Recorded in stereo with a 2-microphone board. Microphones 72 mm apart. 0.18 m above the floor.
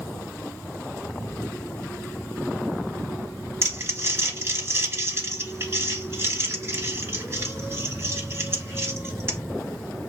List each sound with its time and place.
3.6 s crumpling: 35° right (ahead or behind), 1.6 m